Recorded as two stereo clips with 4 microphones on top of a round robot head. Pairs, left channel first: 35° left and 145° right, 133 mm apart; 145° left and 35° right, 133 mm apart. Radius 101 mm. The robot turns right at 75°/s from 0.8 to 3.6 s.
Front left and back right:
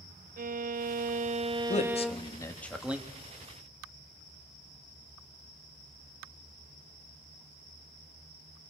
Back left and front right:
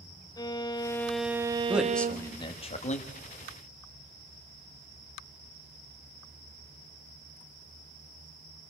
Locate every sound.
0.4 s a violin: 150° right, 0.6 m; by 2.4 s 30° right, 0.6 m
1.7 s a man speaking: 40° left, 1.8 m; by 3.1 s 145° left, 1.8 m